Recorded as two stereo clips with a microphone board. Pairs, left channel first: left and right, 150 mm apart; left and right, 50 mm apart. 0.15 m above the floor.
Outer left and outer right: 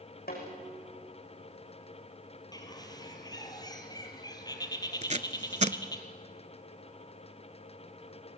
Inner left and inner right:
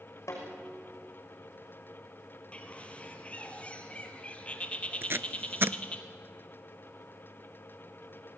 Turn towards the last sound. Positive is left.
turn(degrees=-50)  # may be behind; listen again after turning